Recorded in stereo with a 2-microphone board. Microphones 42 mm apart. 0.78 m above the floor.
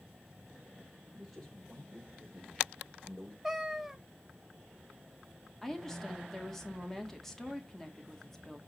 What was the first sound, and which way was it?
A man speaking, centre (ahead or behind).